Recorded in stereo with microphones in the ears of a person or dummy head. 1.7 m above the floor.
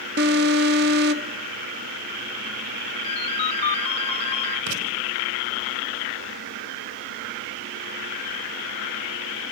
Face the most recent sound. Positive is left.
turn(degrees=-75)  # may be behind; listen again after turning